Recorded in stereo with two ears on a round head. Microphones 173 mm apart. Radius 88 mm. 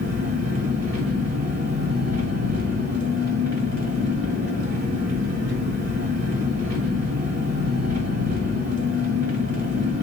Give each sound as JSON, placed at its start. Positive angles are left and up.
{"t": 0.0, "sound": "an engine running", "side_deg": -65, "distance_m": 1.4}